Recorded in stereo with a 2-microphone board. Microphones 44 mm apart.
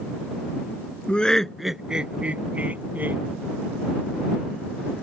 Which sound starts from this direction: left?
Laughter, at 1.1 s.